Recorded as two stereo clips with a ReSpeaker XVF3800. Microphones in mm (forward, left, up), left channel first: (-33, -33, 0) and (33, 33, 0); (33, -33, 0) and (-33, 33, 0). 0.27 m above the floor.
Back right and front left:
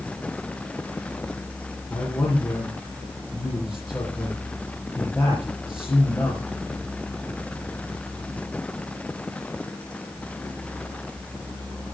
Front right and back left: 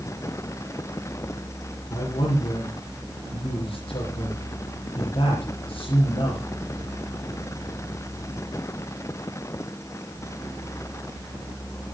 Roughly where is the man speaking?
Ahead right.